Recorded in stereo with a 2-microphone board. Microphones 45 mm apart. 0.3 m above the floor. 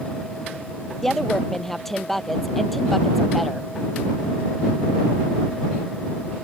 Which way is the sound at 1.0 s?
10° left (ahead or behind).